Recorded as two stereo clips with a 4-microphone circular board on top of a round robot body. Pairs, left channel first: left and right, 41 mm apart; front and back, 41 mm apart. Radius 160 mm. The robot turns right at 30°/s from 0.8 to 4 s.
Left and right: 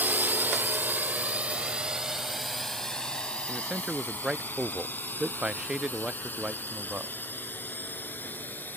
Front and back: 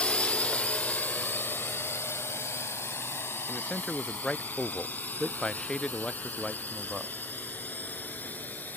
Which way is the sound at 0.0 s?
55° right.